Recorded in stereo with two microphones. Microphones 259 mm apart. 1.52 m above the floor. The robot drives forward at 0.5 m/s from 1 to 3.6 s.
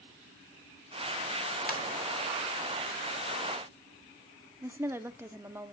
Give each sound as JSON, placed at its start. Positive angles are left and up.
{"t": 1.7, "sound": "a ringtone", "side_deg": 35, "distance_m": 1.5}
{"t": 4.6, "sound": "a woman speaking", "side_deg": -10, "distance_m": 0.5}